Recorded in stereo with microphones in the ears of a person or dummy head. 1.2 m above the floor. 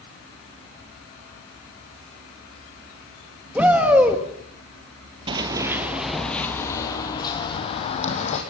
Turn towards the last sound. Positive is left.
turn(degrees=35)  # may be behind; listen again after turning